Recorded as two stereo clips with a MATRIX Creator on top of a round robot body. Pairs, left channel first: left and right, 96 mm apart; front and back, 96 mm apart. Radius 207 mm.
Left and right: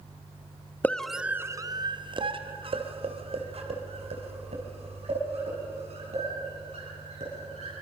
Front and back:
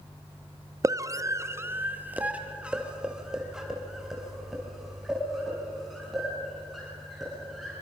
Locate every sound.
0.8 s a scream: 150° left, 1.2 m; by 7.7 s 90° right, 8.5 m